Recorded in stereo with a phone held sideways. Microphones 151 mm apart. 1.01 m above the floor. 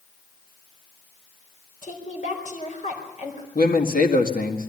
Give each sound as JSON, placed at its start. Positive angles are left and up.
{"t": 1.8, "sound": "a woman speaking", "side_deg": 55, "distance_m": 4.5}
{"t": 3.5, "sound": "a man speaking", "side_deg": 70, "distance_m": 1.9}